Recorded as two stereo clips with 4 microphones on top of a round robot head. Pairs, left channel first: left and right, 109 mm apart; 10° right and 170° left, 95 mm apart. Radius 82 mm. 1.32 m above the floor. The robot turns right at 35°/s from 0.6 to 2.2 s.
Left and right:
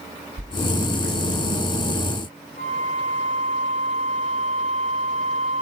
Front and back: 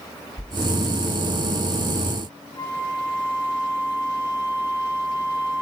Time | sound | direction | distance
0.4 | a whoosh | 85° right | 5.5 m
2.6 | a flute | 50° left | 4.5 m